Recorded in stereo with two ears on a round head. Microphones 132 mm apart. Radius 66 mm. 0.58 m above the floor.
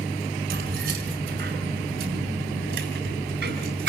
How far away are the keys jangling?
About 5.5 m.